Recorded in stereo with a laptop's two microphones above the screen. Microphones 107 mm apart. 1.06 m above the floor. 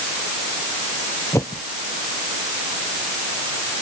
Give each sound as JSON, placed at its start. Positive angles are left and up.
{"t": 1.3, "sound": "a whoosh", "side_deg": 30}